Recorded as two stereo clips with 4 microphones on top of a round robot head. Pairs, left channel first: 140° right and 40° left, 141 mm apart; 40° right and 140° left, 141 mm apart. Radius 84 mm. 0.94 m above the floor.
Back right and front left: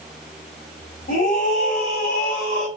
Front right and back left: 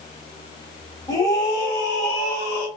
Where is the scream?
105° right, 2.5 m; by 2.7 s 100° right, 4 m.